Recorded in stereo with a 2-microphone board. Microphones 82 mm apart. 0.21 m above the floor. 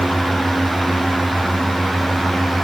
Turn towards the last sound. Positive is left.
No sound to turn to.